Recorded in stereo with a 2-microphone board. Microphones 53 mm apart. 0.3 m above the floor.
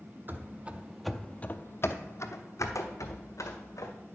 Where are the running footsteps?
40° right (ahead or behind), 0.8 m; by 3.9 s 85° left, 1.8 m.